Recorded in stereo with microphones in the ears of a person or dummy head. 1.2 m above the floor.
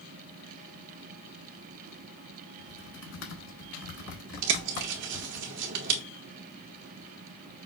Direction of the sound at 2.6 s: 70° left (ahead or behind).